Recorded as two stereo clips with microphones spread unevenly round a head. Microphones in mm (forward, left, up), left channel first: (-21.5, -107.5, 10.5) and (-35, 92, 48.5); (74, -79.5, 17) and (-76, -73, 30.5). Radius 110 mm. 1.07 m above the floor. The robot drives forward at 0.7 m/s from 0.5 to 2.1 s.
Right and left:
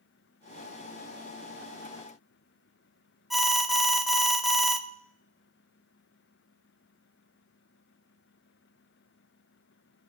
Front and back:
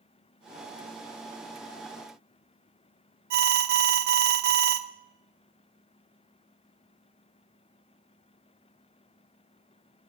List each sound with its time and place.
3.3 s an alarm: 175° right, 0.7 m